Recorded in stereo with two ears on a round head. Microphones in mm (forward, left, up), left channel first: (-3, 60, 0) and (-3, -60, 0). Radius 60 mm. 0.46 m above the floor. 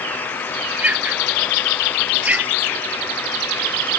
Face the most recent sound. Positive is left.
turn(degrees=-10)  # may be behind; listen again after turning